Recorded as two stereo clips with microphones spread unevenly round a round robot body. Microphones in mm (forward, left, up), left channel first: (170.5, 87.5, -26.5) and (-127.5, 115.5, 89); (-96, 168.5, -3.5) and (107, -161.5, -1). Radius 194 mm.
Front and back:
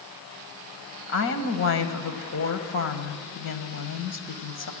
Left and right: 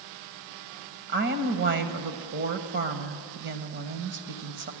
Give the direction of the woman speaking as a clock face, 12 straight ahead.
12 o'clock.